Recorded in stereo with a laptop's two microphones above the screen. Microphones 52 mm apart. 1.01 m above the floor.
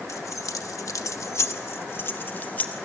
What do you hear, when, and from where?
0.1 s keys jangling: 65° left (ahead or behind), 0.9 m; by 2.8 s 30° left (ahead or behind), 1.6 m